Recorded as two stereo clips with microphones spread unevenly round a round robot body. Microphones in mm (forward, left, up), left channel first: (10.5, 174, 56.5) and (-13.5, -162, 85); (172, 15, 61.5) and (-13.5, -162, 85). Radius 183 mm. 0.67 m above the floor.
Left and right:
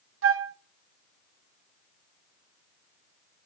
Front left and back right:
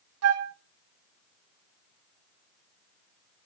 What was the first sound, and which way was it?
A flute, 145° right.